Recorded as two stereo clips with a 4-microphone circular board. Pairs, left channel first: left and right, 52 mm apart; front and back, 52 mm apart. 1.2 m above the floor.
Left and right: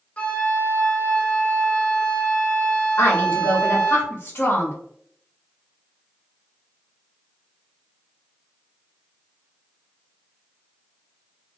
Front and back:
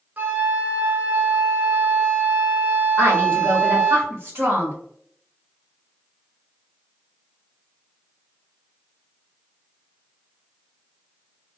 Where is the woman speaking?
135° left, 1.2 m.